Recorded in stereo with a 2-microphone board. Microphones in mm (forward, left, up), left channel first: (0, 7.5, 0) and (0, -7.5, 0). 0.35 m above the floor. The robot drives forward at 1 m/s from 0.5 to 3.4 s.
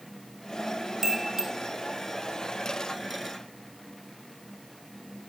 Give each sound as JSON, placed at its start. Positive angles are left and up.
{"t": 1.0, "sound": "a chime", "side_deg": -30, "distance_m": 3.0}